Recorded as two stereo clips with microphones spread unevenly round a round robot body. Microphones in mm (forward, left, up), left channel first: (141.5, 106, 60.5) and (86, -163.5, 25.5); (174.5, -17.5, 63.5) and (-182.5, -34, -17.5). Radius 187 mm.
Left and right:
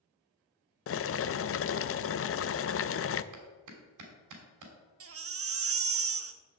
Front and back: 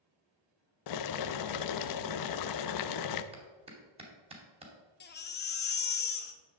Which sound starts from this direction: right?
A clap, at 3.3 s.